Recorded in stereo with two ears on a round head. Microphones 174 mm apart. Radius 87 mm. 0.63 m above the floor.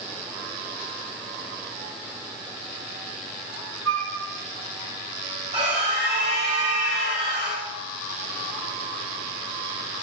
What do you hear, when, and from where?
3.9 s a flute: 80° right, 3 m
5.5 s a scream: 35° right (ahead or behind), 4 m